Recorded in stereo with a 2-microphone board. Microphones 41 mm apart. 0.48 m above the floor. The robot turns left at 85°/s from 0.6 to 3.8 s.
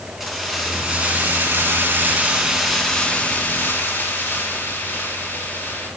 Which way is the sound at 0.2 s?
10° right.